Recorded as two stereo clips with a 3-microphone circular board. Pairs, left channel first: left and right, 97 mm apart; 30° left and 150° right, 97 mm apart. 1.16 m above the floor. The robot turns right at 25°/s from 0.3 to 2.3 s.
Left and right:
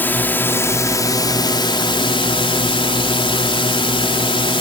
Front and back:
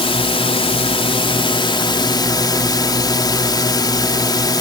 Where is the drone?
20° left; by 4.6 s 70° left.